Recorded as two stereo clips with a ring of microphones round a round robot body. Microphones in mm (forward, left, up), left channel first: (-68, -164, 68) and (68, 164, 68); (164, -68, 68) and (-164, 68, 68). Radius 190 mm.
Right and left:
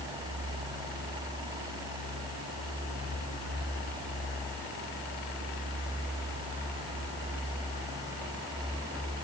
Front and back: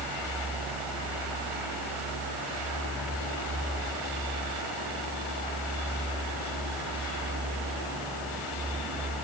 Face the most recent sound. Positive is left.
No sound to turn to.